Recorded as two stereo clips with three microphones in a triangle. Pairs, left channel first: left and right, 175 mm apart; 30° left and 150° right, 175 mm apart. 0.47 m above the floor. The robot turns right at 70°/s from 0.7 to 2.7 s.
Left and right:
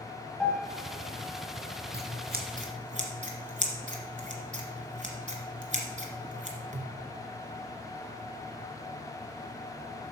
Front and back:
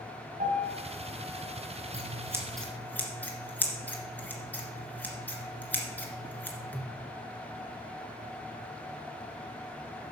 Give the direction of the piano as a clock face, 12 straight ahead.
6 o'clock.